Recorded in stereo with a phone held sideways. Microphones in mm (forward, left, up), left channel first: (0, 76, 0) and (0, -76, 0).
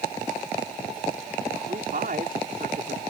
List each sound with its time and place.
1.7 s a man speaking: 70° right (ahead or behind)